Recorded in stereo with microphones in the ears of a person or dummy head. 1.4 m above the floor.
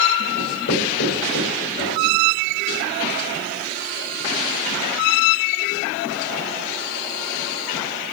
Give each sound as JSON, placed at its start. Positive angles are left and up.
{"t": 0.4, "sound": "writing", "side_deg": 60, "distance_m": 6.5}